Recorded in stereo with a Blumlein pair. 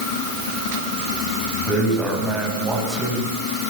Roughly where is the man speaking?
Ahead.